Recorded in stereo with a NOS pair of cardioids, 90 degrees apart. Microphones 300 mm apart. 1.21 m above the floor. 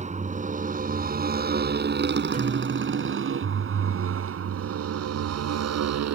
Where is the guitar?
30° right.